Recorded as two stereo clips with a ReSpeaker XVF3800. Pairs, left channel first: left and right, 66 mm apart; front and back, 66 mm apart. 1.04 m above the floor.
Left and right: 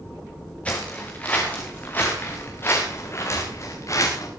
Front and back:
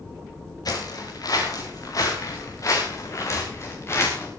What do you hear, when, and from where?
0.7 s footsteps: 20° left, 7 m; by 4.3 s 50° left, 5.5 m